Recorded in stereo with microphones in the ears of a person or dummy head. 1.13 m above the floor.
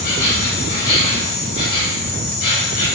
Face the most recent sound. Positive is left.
turn(degrees=55)  # may be behind; listen again after turning